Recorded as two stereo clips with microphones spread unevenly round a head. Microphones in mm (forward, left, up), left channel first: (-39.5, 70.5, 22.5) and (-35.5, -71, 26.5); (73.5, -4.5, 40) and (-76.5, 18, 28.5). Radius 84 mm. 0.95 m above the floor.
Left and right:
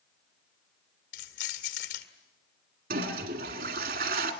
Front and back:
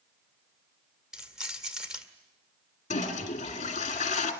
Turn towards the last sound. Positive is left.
turn(degrees=-60)